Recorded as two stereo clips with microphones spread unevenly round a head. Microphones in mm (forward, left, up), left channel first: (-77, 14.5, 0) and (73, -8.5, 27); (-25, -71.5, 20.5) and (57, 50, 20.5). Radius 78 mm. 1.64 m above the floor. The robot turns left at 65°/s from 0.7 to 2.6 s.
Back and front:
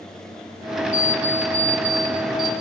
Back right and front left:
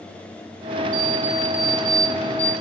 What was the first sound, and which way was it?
An alarm clock, 30° left.